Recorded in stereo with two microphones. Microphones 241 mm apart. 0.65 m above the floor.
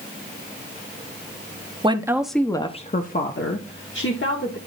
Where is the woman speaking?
20° right (ahead or behind), 0.7 m; by 4.6 s 60° left (ahead or behind), 1.4 m.